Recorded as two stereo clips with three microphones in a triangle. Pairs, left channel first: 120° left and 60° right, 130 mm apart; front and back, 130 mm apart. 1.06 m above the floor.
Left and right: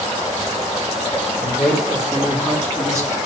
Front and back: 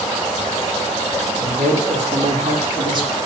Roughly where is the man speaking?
Behind.